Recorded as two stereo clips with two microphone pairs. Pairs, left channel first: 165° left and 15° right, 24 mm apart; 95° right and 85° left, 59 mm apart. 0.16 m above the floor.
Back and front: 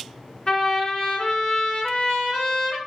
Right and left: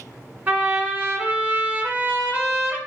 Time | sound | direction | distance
0.5 | a trumpet | 140° left | 1.0 m